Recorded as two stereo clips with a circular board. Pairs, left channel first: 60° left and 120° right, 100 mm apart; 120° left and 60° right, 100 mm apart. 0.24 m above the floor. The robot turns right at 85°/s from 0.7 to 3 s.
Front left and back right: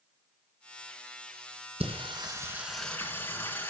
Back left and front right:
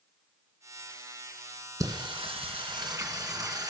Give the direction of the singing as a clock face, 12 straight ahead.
4 o'clock.